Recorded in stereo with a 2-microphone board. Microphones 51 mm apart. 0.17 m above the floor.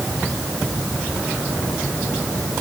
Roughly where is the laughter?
I don't hear laughter.